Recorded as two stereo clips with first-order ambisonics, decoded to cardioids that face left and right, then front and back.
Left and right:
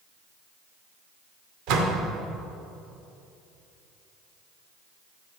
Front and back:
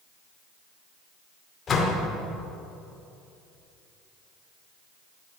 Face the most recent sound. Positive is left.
turn(degrees=-65)